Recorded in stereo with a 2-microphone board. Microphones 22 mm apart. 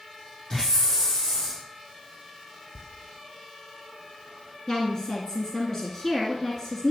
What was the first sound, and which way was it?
A hiss, 30° left (ahead or behind).